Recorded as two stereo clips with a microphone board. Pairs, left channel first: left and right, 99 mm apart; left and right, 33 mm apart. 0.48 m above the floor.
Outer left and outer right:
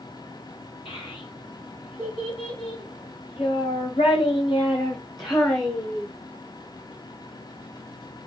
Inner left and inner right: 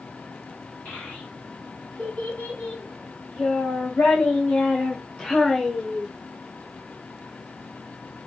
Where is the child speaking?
70° left (ahead or behind), 3 m; by 6.1 s 25° left (ahead or behind), 1.5 m.